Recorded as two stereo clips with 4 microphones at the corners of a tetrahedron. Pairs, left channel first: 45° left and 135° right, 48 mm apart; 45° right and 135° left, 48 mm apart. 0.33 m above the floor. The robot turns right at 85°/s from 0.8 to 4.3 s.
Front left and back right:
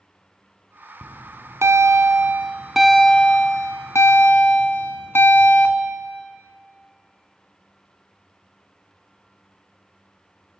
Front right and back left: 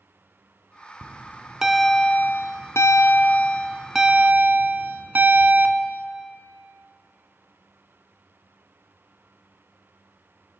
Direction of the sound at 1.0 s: 160° left.